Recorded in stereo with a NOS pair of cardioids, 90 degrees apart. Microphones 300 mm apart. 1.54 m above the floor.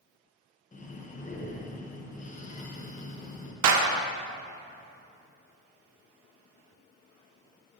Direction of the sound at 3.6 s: 65° right.